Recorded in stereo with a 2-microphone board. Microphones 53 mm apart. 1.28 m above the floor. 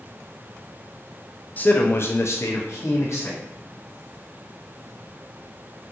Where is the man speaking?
30° left (ahead or behind), 0.6 m; by 3.4 s 55° left (ahead or behind), 1.0 m.